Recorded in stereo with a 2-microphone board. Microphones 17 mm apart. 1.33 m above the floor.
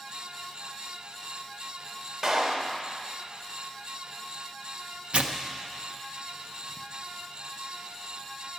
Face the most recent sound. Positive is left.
turn(degrees=-70)  # may be behind; listen again after turning